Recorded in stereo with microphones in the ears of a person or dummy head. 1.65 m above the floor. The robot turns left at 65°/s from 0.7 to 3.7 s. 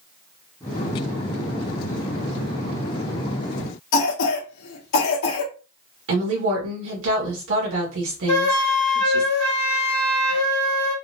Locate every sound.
3.9 s a cough: 65° left (ahead or behind), 1.1 m
6.1 s a woman speaking: 75° right (ahead or behind), 1.7 m
8.3 s a flute: 75° left (ahead or behind), 1.3 m